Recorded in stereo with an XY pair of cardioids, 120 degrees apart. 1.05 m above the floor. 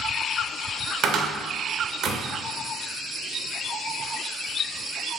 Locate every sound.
1.0 s a cupboard door: 55° right, 0.6 m